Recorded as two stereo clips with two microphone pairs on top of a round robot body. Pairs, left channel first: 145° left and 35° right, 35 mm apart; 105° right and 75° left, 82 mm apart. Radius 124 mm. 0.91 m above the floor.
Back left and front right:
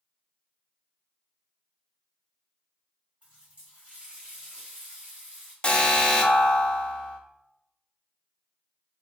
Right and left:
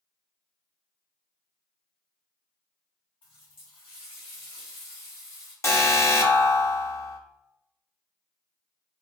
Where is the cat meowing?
No cat meowing in this recording.